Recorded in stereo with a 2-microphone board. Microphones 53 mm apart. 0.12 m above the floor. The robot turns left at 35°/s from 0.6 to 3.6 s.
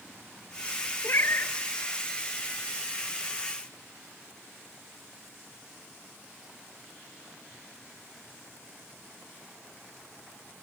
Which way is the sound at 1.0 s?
55° left (ahead or behind).